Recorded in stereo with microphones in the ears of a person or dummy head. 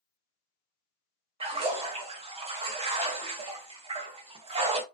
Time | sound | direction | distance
1.4 | a splash | 25° right (ahead or behind) | 0.7 m